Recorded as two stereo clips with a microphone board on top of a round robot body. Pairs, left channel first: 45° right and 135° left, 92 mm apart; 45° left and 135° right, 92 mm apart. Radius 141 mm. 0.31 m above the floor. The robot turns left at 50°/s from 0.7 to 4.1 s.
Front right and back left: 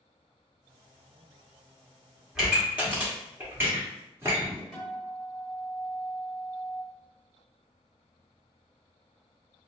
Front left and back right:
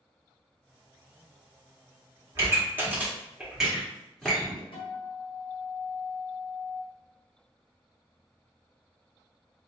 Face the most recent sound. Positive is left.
turn(degrees=40)